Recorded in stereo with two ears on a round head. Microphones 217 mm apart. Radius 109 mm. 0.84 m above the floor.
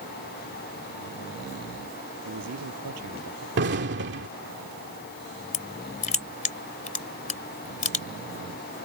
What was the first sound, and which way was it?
A man speaking, 80° right.